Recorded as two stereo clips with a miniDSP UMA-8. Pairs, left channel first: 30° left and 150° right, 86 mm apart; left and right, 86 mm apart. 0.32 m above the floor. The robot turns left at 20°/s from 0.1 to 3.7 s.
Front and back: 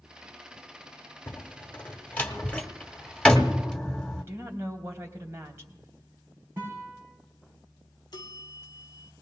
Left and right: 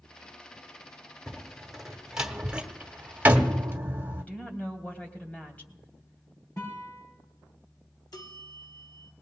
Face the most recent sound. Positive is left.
turn(degrees=55)